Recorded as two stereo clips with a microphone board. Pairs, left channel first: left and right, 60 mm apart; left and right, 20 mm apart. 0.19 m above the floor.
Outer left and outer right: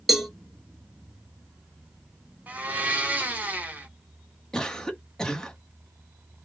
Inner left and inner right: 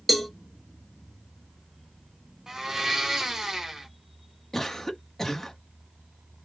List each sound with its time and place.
0.1 s a cowbell: 5° right (ahead or behind), 1.1 m
2.5 s a blender: 25° right (ahead or behind), 1.2 m
4.5 s a cough: 10° left (ahead or behind), 1.1 m